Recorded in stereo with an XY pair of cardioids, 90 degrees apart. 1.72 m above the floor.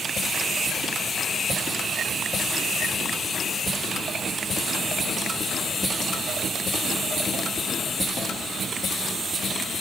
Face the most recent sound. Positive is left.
No sound to turn to.